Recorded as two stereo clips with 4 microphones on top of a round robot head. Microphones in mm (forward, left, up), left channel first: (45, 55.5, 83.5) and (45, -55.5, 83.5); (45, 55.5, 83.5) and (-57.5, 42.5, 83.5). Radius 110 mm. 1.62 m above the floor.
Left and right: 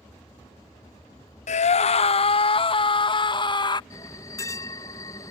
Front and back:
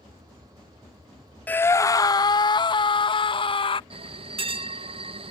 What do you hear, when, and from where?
1.5 s a scream: 80° left; by 3.8 s 40° left
3.9 s a bell: 155° left